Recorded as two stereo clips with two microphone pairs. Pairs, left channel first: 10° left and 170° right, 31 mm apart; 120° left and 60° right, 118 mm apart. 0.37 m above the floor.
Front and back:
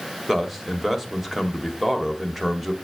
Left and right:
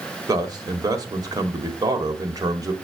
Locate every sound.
0.3 s a man speaking: 95° right, 1.4 m